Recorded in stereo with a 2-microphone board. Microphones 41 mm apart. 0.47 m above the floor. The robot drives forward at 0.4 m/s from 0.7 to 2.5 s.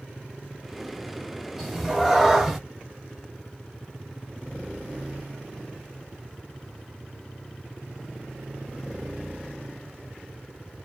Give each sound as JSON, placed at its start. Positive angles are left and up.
{"t": 1.6, "sound": "a cat meowing", "side_deg": -5, "distance_m": 1.0}